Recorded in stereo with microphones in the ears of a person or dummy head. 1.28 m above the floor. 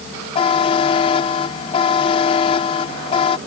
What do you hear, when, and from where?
0.3 s a buzzer: 35° left (ahead or behind)